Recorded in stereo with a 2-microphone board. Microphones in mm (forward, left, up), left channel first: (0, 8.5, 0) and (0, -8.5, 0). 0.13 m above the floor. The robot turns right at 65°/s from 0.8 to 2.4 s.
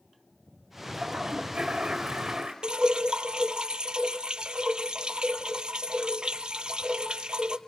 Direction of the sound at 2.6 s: 65° right (ahead or behind).